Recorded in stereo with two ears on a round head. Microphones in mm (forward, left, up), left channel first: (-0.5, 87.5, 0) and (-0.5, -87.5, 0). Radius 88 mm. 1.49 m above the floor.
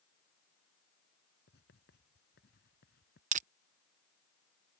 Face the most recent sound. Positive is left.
turn(degrees=-40)  # may be behind; listen again after turning